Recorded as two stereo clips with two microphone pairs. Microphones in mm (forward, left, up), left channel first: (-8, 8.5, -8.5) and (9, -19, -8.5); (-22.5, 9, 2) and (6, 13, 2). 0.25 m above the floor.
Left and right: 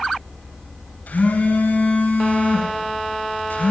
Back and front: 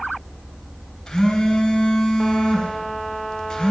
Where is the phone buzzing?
130° left, 1.5 m.